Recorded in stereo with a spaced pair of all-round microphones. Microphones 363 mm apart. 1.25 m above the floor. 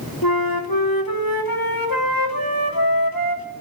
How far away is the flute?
About 3.5 m.